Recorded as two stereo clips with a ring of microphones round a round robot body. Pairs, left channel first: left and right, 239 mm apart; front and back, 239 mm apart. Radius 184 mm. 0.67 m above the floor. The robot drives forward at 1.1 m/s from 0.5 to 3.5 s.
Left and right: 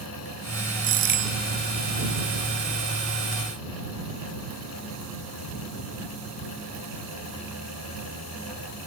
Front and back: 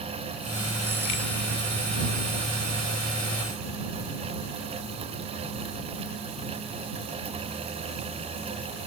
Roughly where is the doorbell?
Right.